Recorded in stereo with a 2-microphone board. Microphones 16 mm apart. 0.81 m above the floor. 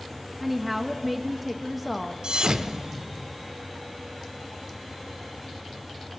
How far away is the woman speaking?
About 0.7 m.